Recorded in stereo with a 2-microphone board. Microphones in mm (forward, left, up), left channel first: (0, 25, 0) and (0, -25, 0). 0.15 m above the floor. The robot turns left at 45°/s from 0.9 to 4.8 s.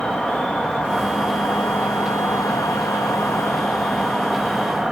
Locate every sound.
0.0 s an insect: 160° left, 2 m; by 4.9 s 15° right, 2 m